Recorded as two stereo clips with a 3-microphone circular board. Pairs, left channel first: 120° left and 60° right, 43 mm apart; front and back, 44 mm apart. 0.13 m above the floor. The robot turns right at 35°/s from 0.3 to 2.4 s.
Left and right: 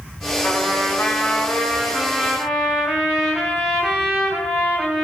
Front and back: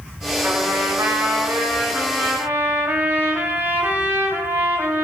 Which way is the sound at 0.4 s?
150° left.